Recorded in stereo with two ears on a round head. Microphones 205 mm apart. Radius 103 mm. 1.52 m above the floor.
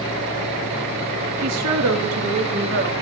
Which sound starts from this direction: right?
A woman speaking, at 1.4 s.